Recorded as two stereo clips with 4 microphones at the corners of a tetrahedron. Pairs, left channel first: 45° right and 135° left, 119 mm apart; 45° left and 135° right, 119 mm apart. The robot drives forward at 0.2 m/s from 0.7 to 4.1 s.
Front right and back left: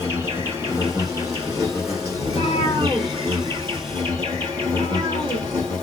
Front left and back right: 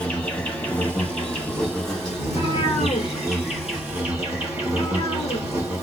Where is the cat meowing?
80° left, 1.1 m; by 5.5 s 105° left, 1.1 m.